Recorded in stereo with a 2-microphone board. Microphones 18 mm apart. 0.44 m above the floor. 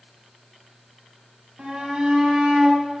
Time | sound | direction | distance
1.6 | a shout | 55° right (ahead or behind) | 3.5 m